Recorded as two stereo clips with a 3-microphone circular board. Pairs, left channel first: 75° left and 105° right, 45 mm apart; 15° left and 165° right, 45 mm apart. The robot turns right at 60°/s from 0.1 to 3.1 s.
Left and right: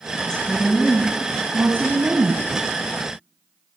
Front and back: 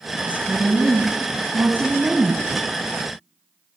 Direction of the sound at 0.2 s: 140° left.